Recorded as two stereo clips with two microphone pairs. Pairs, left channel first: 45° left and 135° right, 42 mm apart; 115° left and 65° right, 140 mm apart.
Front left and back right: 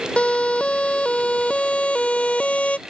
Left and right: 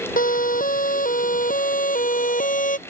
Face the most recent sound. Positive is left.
turn(degrees=100)